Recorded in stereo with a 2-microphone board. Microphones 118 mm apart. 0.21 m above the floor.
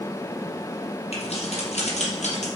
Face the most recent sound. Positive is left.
turn(degrees=70)  # may be behind; listen again after turning